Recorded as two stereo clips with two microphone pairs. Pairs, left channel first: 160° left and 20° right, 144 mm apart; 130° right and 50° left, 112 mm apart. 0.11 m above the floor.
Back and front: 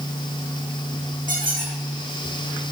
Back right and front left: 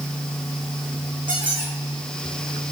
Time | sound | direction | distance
1.3 | a squeak | 5° left | 3.5 m